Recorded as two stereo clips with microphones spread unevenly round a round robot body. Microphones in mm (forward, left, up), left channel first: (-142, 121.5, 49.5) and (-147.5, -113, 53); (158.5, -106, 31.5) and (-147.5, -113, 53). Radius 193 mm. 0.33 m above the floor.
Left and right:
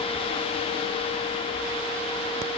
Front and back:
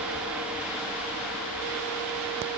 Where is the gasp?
No gasp in this recording.